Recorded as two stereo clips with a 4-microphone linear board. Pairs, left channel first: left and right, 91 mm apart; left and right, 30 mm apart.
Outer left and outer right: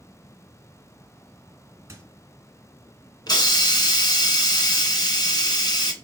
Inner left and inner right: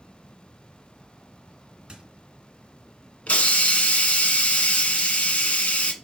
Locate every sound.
1.9 s a squeak: 35° right (ahead or behind), 2 m
3.3 s a hiss: 50° left (ahead or behind), 1.4 m